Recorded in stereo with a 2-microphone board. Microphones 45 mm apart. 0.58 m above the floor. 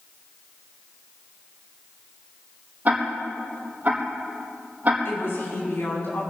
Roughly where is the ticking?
Right.